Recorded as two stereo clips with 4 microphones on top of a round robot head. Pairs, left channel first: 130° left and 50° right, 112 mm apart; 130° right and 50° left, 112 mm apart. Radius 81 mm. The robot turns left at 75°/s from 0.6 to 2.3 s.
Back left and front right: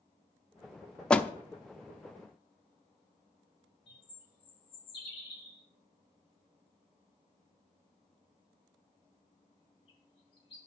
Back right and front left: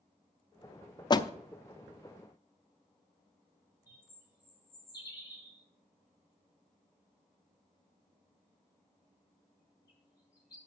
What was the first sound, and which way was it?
A door slam, 150° right.